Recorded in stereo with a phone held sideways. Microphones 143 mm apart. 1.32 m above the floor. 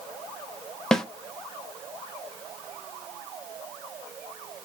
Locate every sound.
0.9 s a snare drum: 5° left (ahead or behind), 0.6 m